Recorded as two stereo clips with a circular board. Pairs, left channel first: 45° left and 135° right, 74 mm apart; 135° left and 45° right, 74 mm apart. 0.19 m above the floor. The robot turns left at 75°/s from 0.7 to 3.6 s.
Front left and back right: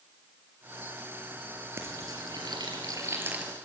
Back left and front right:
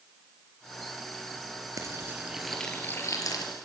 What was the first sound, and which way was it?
Frying, 80° right.